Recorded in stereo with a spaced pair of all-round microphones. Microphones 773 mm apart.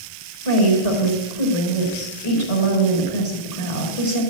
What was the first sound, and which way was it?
A woman speaking, 45° left (ahead or behind).